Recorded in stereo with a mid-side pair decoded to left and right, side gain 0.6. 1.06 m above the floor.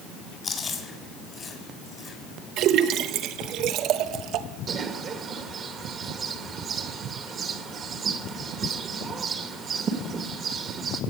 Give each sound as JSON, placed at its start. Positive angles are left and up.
{"t": 0.4, "sound": "chewing", "azimuth_deg": 30, "distance_m": 4.0}
{"t": 2.6, "sound": "a splash", "azimuth_deg": -65, "distance_m": 0.9}
{"t": 4.7, "sound": "a bird", "azimuth_deg": -40, "distance_m": 1.6}